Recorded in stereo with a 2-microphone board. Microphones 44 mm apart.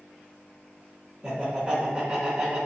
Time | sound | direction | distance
1.2 | laughter | 10° right (ahead or behind) | 1.0 m